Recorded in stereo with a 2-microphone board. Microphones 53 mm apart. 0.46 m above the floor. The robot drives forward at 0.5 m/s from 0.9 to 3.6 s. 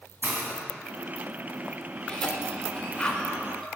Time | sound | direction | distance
0.2 | a hiss | 45° right (ahead or behind) | 1.9 m
2.1 | a cough | 20° left (ahead or behind) | 1.2 m